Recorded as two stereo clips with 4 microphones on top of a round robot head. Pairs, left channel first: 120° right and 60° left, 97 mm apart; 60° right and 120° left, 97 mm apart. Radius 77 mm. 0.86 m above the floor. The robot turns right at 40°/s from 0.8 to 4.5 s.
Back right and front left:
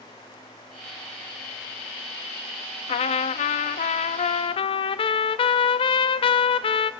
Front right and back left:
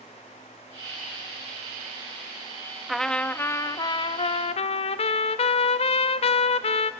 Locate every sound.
2.9 s a trumpet: 150° right, 0.6 m; by 6.9 s 85° right, 0.6 m